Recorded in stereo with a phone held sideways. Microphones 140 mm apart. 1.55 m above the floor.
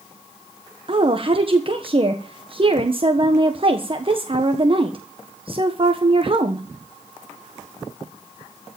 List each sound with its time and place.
0.9 s a woman speaking: 40° right (ahead or behind), 1.3 m